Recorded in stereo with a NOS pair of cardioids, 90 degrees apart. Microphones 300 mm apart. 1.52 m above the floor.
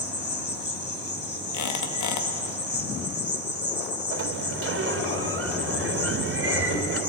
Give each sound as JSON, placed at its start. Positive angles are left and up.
{"t": 0.0, "sound": "an insect", "azimuth_deg": 35, "distance_m": 3.5}
{"t": 1.5, "sound": "a squeak", "azimuth_deg": 70, "distance_m": 1.8}
{"t": 4.1, "sound": "a sliding door", "azimuth_deg": -45, "distance_m": 3.0}